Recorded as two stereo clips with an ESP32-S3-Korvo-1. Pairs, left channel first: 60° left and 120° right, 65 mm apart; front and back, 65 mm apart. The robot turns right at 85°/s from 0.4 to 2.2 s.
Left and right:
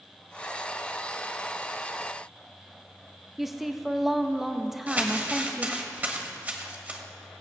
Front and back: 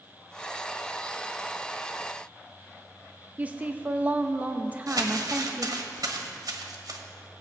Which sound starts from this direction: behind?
Crumpling, at 4.9 s.